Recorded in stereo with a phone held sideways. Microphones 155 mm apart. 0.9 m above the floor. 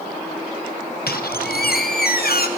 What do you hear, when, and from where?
1.1 s a squeak: 85° left, 2.5 m